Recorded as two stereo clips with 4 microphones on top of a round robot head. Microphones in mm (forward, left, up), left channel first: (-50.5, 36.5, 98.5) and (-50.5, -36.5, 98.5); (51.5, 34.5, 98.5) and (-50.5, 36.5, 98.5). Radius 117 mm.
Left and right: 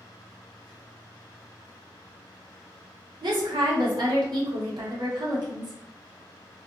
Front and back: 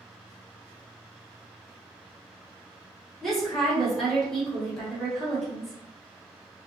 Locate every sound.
3.2 s a woman speaking: 85° right, 1.3 m